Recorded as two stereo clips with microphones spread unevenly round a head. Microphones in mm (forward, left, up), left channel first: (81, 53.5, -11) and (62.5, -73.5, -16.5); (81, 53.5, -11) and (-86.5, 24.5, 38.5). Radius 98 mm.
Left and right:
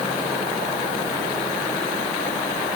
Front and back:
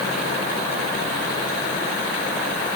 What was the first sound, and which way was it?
Only background noise.